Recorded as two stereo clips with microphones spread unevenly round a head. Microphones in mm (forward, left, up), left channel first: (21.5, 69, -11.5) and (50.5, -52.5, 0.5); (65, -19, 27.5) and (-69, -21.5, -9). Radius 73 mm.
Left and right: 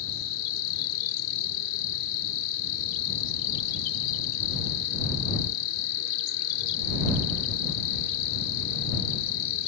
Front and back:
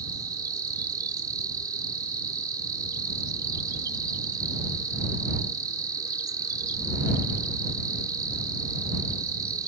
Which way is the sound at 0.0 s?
110° left.